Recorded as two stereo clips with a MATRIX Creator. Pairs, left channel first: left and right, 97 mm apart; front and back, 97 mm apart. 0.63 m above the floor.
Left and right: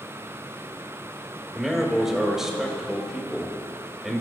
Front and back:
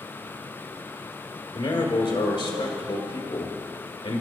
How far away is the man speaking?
About 2.5 m.